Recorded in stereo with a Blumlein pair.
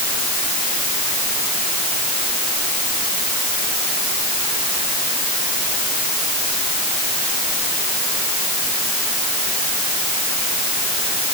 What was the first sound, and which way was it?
Only background noise.